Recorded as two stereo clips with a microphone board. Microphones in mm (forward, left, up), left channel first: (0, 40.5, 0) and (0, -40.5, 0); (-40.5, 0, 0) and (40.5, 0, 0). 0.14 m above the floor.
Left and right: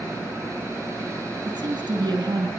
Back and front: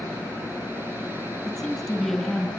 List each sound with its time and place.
1.4 s a woman speaking: 95° right, 4 m